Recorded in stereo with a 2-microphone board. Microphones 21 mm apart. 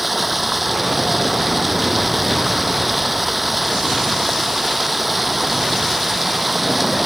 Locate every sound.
0.0 s running water: 5° right (ahead or behind)